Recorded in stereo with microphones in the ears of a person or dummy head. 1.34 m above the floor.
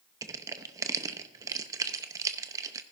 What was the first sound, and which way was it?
Crushing, 20° right (ahead or behind).